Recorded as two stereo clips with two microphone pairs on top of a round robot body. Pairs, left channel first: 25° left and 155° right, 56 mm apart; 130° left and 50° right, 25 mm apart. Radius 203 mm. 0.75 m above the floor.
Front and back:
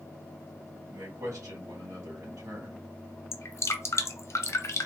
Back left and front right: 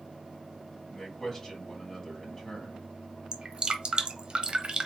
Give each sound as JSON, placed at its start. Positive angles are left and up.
{"t": 0.9, "sound": "a man speaking", "azimuth_deg": -155, "distance_m": 2.5}
{"t": 3.3, "sound": "dripping", "azimuth_deg": -5, "distance_m": 0.9}